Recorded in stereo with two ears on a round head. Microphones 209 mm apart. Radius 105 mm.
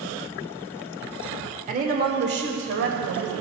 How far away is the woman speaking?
About 1.4 m.